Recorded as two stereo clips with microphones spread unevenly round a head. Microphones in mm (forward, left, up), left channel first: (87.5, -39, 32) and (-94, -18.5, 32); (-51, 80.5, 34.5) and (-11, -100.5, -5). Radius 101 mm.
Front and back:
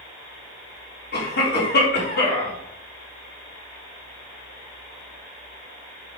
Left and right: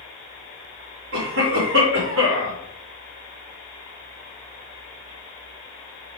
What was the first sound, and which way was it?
A cough, 45° right.